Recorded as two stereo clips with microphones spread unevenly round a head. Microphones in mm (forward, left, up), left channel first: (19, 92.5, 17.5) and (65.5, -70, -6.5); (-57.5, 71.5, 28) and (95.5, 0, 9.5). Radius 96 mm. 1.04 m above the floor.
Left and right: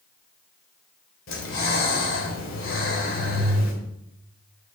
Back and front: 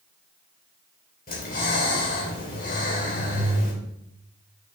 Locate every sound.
1.3 s breathing: 115° left, 3.5 m